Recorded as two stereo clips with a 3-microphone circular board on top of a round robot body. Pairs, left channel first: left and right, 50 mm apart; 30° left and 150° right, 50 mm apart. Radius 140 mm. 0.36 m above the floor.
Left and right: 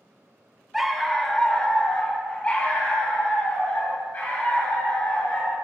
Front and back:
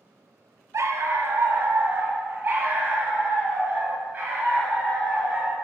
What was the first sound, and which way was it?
A dog barking, 175° right.